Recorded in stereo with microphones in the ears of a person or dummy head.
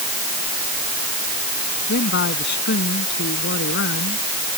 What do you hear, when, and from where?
1.9 s a man speaking: 65° left (ahead or behind); by 4.2 s 70° left (ahead or behind)